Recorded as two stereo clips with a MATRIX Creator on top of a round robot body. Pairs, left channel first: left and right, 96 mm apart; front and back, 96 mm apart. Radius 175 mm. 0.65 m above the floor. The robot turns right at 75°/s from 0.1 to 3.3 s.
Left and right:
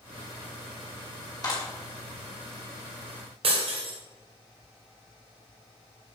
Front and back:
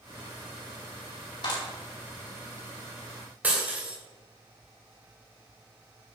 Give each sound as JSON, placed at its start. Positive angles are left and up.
{"t": 1.4, "sound": "a clap", "azimuth_deg": 40, "distance_m": 4.0}
{"t": 3.4, "sound": "breaking glass", "azimuth_deg": -110, "distance_m": 2.0}